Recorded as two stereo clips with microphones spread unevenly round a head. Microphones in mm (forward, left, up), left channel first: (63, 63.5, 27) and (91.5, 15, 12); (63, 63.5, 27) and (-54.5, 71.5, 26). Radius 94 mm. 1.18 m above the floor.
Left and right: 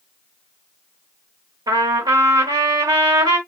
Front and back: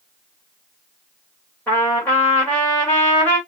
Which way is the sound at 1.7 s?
85° right.